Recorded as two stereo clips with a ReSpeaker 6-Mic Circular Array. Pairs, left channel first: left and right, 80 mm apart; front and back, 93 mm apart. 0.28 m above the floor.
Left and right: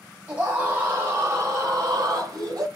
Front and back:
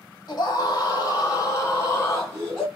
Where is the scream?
25° right, 2 m; by 2.7 s 60° right, 2.5 m.